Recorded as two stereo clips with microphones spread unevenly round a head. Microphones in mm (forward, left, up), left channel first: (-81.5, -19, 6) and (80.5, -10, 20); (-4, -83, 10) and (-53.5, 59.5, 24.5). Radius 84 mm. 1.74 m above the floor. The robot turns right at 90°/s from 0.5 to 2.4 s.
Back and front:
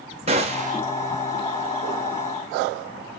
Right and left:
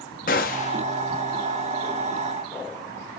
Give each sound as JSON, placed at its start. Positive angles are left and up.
{"t": 0.3, "sound": "a gunshot", "azimuth_deg": -35, "distance_m": 1.1}